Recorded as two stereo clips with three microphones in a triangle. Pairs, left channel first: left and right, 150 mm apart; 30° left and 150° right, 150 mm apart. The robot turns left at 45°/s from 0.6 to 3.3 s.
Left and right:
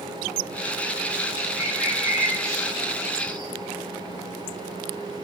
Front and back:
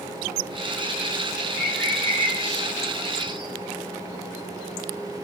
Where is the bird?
110° left, 5 m; by 3.5 s 35° left, 5 m.